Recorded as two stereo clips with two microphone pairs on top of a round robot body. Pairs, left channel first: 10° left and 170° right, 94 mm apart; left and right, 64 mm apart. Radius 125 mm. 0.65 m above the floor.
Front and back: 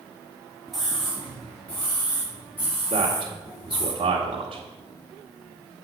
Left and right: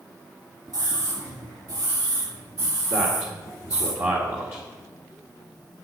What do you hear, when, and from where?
0.7 s a scream: 85° right, 1.9 m; by 3.9 s 55° right, 3.5 m
2.9 s a man speaking: 145° right, 1.9 m